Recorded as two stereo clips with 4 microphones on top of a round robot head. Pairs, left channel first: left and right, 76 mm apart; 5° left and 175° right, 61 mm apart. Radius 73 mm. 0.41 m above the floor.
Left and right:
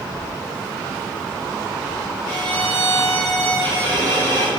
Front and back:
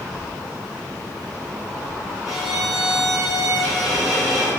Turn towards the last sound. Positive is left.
turn(degrees=-100)